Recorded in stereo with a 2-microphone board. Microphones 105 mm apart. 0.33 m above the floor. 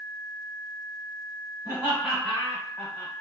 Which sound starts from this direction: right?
Laughter, at 1.6 s.